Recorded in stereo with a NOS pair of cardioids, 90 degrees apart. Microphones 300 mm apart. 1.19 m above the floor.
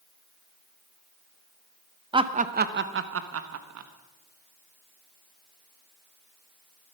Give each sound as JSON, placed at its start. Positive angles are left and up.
{"t": 2.1, "sound": "laughter", "azimuth_deg": -15, "distance_m": 1.0}